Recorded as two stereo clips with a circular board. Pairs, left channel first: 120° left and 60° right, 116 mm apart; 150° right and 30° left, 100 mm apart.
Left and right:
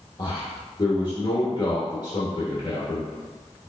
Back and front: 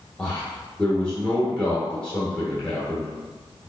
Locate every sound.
0.2 s a man speaking: 140° left, 1.0 m